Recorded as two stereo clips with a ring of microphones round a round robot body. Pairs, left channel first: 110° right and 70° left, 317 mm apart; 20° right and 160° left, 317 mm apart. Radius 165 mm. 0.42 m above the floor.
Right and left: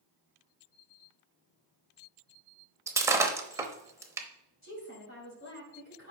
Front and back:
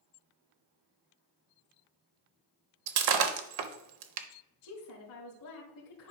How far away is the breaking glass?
About 0.8 m.